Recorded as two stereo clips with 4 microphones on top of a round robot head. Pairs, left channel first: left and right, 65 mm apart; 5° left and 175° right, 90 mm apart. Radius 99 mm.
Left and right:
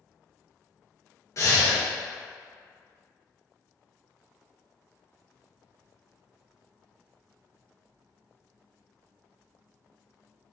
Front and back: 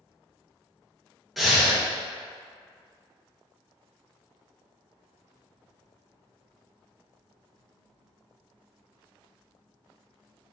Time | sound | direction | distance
1.4 | breathing | 95° left | 1.1 m